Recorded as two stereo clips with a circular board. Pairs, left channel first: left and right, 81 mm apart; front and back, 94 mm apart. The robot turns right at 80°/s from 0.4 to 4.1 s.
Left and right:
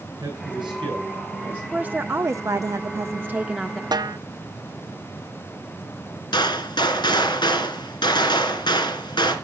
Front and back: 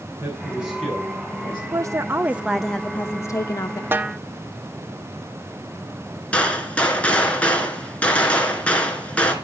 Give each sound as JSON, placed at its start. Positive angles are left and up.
{"t": 0.2, "sound": "a man speaking", "azimuth_deg": -115, "distance_m": 8.0}
{"t": 1.7, "sound": "a woman speaking", "azimuth_deg": -160, "distance_m": 0.5}
{"t": 3.9, "sound": "a snare drum", "azimuth_deg": -115, "distance_m": 0.7}
{"t": 6.3, "sound": "a gunshot", "azimuth_deg": 75, "distance_m": 2.5}